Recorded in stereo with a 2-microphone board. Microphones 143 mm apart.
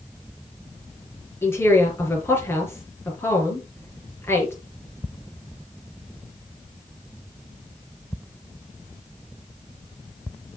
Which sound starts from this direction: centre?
A woman speaking, at 1.4 s.